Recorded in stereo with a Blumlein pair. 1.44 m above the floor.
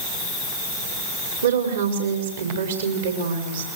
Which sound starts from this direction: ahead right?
A woman speaking, at 1.4 s.